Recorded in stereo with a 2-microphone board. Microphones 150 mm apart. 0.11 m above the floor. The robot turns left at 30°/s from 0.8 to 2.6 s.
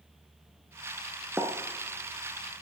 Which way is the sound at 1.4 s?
15° right (ahead or behind).